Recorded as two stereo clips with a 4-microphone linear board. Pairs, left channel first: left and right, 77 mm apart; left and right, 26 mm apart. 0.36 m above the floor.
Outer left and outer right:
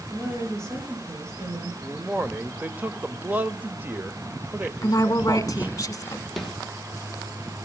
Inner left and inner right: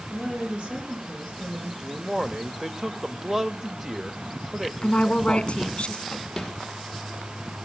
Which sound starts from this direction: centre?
A snare drum, at 6.4 s.